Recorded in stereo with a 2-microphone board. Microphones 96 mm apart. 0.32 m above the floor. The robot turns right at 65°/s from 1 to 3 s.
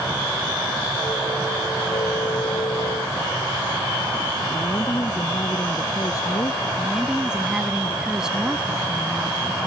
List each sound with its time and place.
4.5 s a woman speaking: 35° left (ahead or behind)
6.8 s a woman speaking: 10° right (ahead or behind)